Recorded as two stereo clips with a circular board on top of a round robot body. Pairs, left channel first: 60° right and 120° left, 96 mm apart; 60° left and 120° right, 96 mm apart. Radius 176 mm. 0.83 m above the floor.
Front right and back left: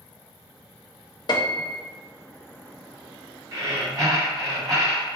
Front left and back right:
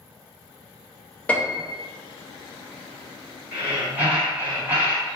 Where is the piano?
15° right, 0.7 m.